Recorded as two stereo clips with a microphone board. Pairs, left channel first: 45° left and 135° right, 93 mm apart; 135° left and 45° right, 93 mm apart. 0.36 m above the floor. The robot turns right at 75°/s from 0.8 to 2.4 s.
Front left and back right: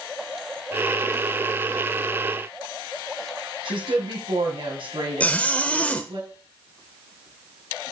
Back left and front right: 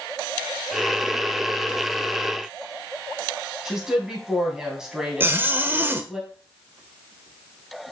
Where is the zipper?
10° right, 1.0 m.